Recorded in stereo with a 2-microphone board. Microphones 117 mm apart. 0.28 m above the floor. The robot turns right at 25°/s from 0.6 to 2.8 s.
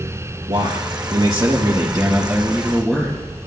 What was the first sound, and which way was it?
A man speaking, 55° right.